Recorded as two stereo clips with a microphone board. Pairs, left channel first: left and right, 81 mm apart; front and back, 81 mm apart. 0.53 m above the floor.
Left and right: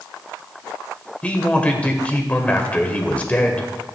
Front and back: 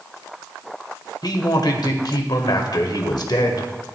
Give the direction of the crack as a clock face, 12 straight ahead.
No crack in this recording.